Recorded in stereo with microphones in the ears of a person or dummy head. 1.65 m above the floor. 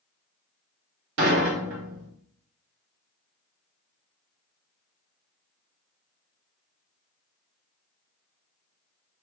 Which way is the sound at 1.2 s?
60° right (ahead or behind).